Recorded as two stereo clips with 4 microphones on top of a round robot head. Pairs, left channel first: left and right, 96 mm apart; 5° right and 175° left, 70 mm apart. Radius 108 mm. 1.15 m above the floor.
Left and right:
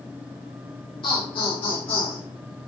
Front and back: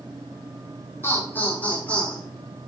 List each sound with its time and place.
1.0 s laughter: 50° left, 4 m; by 2.2 s 70° left, 4.5 m